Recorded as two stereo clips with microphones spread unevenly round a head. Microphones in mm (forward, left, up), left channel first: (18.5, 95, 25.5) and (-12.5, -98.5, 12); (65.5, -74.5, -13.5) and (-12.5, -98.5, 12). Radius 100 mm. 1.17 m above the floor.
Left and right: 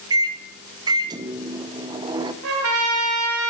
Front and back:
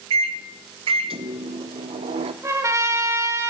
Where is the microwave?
165° right, 0.7 m.